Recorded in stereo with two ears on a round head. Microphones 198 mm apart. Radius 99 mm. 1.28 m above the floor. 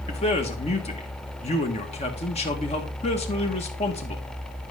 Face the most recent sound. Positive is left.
turn(degrees=30)  # may be behind; listen again after turning